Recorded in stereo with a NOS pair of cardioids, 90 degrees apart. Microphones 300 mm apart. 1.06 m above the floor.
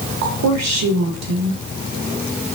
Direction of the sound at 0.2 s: 65° right.